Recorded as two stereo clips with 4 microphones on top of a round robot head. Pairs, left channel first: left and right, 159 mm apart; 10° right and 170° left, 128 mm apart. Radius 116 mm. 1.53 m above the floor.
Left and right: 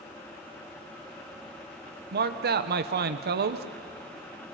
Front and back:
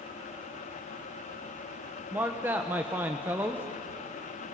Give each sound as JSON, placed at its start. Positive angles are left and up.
{"t": 2.1, "sound": "a man speaking", "azimuth_deg": -110, "distance_m": 1.1}